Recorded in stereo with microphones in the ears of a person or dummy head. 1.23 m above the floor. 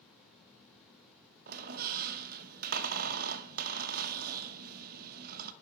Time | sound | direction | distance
1.5 | a squeak | 50° right (ahead or behind) | 0.8 m